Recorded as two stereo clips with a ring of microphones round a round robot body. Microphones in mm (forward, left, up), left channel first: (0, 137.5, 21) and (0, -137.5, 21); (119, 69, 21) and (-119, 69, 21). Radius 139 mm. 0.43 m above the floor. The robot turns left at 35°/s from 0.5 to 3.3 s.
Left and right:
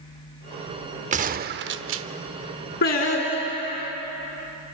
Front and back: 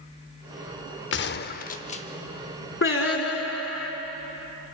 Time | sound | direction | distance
1.1 | a gunshot | 30° right | 0.6 m
2.8 | singing | 35° left | 3 m